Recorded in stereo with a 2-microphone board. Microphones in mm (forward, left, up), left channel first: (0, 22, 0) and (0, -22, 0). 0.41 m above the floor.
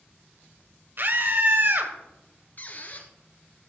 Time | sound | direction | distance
1.0 | a scream | 55° right (ahead or behind) | 1.9 m
2.6 | a squeak | 45° left (ahead or behind) | 1.7 m